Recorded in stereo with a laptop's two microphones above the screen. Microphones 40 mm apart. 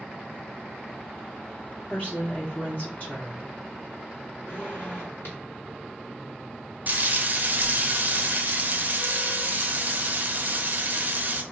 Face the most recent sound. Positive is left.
turn(degrees=-45)  # may be behind; listen again after turning